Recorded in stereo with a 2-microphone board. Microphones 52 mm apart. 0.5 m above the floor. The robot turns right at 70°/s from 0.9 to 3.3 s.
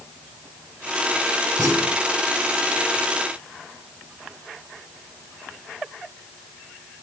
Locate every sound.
1.6 s a clunk: 85° right, 10 m; by 2.0 s 55° right, 10 m